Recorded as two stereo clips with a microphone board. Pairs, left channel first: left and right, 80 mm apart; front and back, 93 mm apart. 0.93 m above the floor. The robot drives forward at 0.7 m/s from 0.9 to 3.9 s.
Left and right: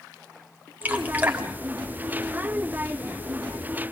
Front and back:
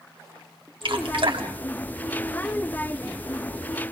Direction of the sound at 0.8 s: 155° right.